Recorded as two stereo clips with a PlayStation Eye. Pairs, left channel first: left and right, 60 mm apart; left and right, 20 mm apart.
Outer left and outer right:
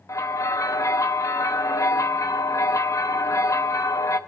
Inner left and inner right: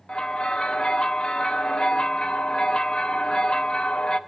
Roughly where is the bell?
Left.